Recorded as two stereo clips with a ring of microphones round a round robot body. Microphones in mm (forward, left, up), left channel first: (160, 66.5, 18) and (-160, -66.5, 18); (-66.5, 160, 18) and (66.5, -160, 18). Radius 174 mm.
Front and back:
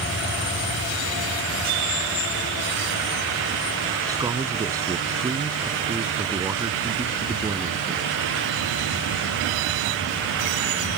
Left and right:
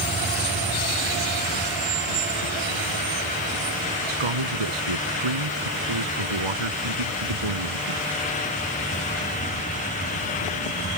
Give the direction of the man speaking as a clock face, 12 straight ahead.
3 o'clock.